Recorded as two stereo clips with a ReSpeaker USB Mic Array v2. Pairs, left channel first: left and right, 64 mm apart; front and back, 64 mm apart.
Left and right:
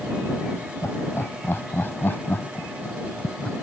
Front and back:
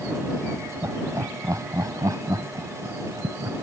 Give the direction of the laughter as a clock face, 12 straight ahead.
7 o'clock.